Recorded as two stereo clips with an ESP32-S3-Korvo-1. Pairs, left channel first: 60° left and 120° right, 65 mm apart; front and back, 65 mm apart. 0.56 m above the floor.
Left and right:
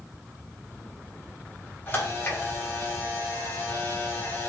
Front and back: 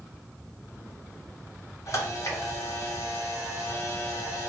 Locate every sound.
1.9 s a camera shutter: 15° left, 1.4 m